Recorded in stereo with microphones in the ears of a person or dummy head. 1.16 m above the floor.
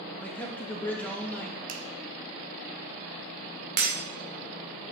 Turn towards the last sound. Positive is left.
turn(degrees=-50)  # may be behind; listen again after turning